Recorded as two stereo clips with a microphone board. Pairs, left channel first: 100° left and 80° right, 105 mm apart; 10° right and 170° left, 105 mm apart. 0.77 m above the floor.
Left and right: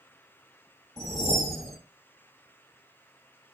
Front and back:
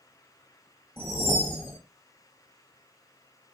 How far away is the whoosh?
About 0.9 m.